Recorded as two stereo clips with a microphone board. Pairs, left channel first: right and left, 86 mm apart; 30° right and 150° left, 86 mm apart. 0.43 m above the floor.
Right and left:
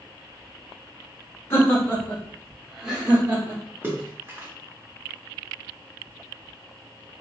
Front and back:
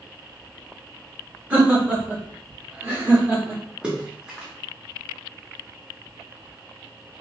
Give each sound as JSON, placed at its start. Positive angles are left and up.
{"t": 1.5, "sound": "laughter", "azimuth_deg": -140, "distance_m": 1.3}
{"t": 3.8, "sound": "a splash", "azimuth_deg": 90, "distance_m": 0.9}